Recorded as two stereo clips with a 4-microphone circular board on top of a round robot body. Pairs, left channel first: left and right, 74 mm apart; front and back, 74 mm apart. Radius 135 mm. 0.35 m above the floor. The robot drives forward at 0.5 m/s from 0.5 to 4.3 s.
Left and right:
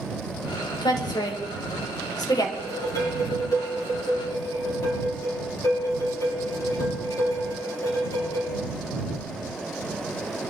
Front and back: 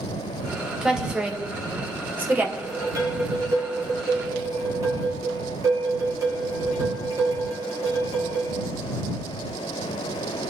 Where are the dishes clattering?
130° left, 6 m; by 8.5 s 135° left, 6.5 m.